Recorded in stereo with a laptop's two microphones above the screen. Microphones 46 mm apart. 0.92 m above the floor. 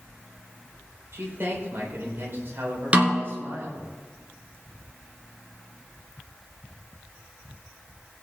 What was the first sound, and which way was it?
A man speaking, 50° right (ahead or behind).